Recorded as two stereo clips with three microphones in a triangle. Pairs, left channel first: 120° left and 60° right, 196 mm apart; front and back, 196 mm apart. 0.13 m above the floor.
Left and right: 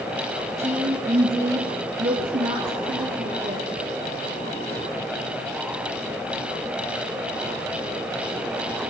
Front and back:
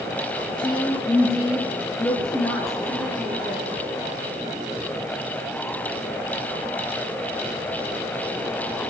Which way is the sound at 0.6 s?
50° right.